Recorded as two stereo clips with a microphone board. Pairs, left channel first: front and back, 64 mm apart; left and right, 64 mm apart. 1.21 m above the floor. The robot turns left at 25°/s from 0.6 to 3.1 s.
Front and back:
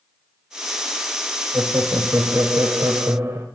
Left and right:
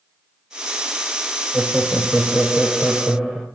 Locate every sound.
1.5 s laughter: 135° right, 0.6 m; by 3.5 s 175° right, 0.6 m